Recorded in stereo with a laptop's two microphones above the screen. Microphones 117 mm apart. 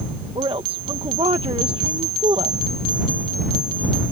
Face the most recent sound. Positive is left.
turn(degrees=-50)  # may be behind; listen again after turning